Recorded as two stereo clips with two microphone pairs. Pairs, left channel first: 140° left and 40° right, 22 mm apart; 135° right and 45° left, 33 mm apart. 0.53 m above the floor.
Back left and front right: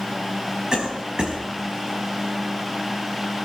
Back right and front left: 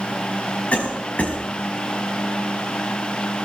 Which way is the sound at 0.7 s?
95° right.